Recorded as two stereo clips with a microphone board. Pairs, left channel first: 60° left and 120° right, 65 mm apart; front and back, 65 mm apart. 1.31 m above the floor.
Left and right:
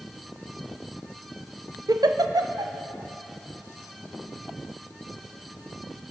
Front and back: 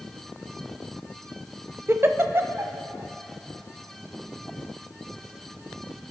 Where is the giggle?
125° right, 0.6 m.